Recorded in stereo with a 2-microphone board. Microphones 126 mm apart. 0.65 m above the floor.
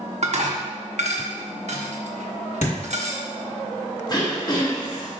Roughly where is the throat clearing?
Left.